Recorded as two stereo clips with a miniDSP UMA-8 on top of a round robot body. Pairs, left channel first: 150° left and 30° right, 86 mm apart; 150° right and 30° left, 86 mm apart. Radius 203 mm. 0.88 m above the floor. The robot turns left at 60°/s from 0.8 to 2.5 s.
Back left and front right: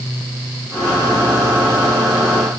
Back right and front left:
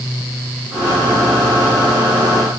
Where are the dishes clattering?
I don't hear dishes clattering.